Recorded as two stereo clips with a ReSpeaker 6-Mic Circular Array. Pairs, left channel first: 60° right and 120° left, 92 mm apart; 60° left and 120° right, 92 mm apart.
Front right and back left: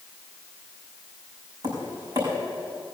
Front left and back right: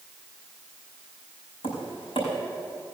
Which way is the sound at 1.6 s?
80° left.